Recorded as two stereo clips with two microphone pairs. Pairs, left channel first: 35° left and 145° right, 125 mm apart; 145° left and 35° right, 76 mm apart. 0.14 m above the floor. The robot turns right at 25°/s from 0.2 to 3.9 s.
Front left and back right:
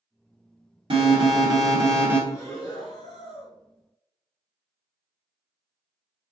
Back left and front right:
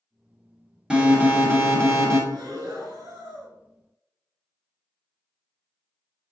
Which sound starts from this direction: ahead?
Breathing, at 2.3 s.